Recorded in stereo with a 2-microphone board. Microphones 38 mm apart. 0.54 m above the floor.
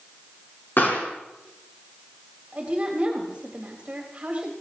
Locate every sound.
0.8 s a pop: 65° left (ahead or behind), 4.5 m
2.5 s a woman speaking: 35° right (ahead or behind), 3 m